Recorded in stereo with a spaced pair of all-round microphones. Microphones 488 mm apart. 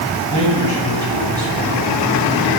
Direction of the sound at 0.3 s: 55° left (ahead or behind).